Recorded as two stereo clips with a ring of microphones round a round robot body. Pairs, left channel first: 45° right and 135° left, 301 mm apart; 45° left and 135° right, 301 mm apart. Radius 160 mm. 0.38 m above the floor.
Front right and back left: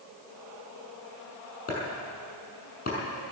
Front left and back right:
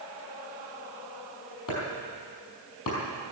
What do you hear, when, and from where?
1.7 s chopping: 20° left, 5.5 m